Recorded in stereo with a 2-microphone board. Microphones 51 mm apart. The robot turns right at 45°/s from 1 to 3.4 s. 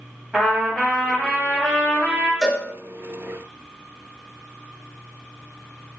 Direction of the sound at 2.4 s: 5° right (ahead or behind).